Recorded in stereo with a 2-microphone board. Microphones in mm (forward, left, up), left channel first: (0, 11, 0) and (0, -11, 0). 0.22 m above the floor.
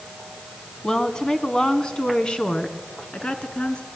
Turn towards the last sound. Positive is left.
turn(degrees=60)  # may be behind; listen again after turning